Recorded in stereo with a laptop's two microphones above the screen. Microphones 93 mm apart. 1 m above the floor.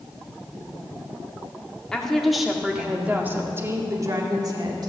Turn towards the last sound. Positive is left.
turn(degrees=-50)  # may be behind; listen again after turning